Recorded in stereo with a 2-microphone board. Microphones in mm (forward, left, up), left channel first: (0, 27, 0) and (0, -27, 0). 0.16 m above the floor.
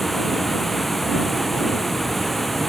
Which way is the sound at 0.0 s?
5° left (ahead or behind).